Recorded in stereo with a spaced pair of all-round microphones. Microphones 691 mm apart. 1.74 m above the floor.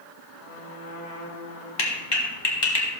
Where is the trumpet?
85° left, 4.5 m.